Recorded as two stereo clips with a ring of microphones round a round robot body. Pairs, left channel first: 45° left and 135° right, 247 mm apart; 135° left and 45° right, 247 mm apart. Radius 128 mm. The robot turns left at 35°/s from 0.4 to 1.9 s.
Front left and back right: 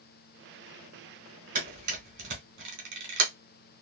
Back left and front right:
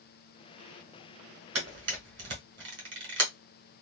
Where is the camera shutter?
75° right, 1.5 m; by 3.3 s 90° right, 1.5 m.